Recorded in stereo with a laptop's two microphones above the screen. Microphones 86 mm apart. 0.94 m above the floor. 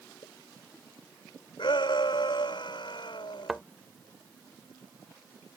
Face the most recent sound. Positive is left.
turn(degrees=-5)  # may be behind; listen again after turning